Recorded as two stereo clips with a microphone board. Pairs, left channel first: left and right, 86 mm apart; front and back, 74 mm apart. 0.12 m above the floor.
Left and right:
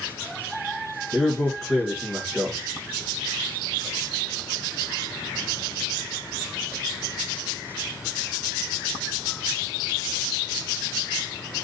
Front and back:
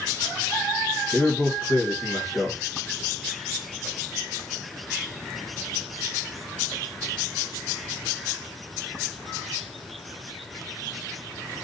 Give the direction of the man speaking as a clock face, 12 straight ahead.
1 o'clock.